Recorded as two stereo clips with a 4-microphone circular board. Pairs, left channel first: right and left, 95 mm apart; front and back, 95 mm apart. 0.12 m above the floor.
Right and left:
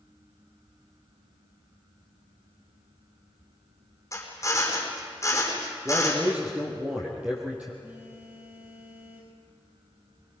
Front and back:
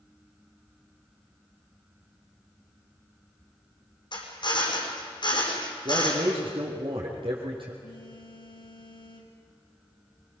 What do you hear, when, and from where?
4.1 s a drill: 30° right, 4.5 m
5.8 s a man speaking: 165° left, 3.5 m
7.8 s a phone buzzing: 20° left, 4 m